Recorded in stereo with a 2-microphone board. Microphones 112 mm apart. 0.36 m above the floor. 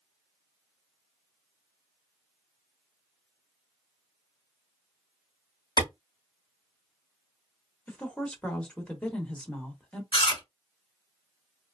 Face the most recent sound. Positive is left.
turn(degrees=55)  # may be behind; listen again after turning